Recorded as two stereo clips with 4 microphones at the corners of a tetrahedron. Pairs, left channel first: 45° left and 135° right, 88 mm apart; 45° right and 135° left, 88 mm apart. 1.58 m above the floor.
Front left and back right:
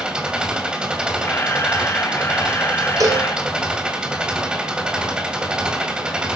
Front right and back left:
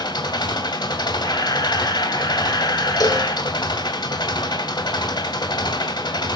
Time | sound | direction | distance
0.0 | an engine running | 60° right | 2 m
1.2 | a camera shutter | 15° right | 2.5 m
3.0 | a cowbell | 85° right | 2.5 m